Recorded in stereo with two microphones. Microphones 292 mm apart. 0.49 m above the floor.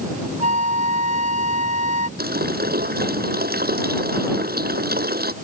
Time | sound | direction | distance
0.4 | a flute | 60° left (ahead or behind) | ?
2.2 | a running tap | 35° right (ahead or behind) | ?